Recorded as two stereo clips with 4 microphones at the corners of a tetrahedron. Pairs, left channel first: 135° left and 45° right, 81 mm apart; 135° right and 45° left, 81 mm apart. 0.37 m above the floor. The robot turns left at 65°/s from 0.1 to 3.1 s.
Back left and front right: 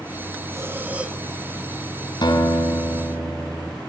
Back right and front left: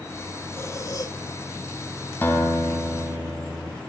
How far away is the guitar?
About 3 m.